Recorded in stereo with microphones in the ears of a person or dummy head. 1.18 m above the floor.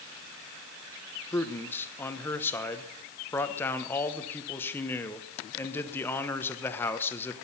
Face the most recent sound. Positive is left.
turn(degrees=15)  # may be behind; listen again after turning